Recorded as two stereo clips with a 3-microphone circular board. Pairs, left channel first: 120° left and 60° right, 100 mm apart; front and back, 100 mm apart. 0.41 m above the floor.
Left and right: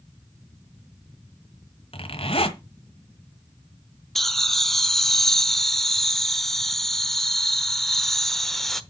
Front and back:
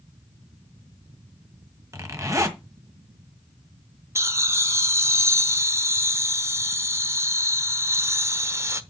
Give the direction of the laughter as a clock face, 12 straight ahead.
5 o'clock.